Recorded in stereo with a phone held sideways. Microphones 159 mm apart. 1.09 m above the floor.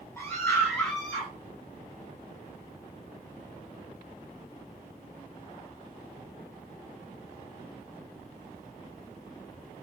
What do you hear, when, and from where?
0.2 s a scream: 10° left (ahead or behind), 8.5 m; by 1.3 s centre (ahead or behind), 8.5 m